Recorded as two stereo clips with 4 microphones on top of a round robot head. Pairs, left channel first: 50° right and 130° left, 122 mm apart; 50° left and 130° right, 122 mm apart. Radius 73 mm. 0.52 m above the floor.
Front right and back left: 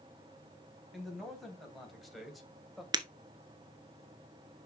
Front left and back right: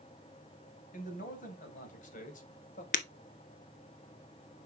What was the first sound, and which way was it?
A man speaking, 40° left.